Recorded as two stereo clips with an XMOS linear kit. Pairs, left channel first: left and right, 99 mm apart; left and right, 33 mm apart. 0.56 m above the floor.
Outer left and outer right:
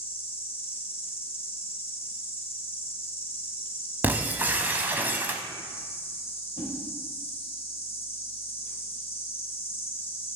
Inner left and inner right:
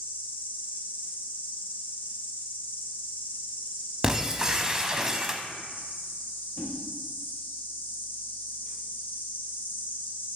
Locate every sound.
0.0 s an insect: 75° left (ahead or behind), 1.8 m
4.0 s breaking glass: 20° right (ahead or behind), 0.6 m
6.6 s a whoosh: 55° left (ahead or behind), 1.9 m